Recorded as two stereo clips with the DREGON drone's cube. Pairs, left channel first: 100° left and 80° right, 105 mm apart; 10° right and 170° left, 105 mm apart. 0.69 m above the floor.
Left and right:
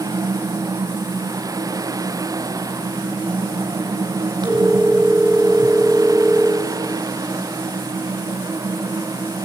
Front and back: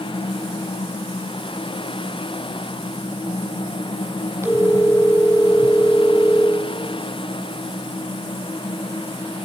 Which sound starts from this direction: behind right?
A phone ringing, at 4.4 s.